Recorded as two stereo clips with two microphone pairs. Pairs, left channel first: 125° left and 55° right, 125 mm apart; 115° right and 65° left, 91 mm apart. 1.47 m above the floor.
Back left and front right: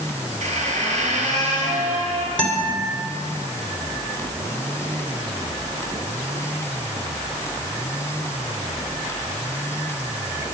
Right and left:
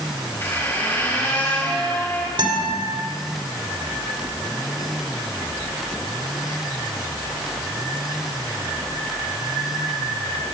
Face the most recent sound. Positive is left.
turn(degrees=45)